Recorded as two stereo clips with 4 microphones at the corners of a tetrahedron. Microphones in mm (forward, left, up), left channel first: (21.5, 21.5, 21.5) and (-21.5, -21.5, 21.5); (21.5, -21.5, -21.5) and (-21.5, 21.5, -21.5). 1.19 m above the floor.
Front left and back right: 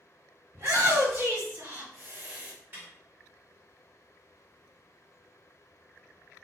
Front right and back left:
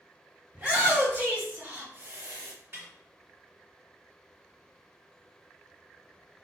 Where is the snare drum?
Straight behind, 1.8 m.